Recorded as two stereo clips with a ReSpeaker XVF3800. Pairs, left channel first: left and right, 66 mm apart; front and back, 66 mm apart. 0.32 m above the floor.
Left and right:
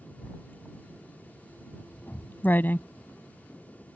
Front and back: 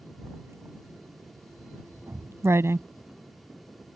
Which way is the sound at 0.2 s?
145° left.